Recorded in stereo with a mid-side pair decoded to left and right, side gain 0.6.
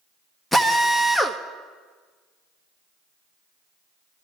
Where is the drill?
10° left, 1.2 m.